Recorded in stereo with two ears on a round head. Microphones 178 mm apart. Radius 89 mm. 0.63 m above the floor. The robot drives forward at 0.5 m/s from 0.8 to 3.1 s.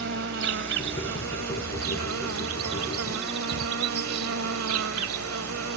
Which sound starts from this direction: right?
An insect, at 0.0 s.